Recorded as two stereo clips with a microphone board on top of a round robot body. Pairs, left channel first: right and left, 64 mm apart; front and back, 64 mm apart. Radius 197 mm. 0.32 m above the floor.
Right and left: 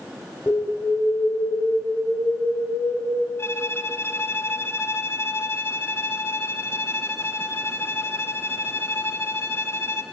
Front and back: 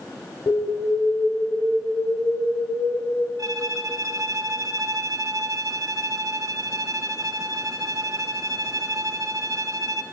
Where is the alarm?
30° right, 6 m.